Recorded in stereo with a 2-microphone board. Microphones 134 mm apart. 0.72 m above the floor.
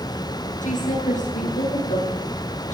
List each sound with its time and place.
0.6 s a woman speaking: 80° left, 9.5 m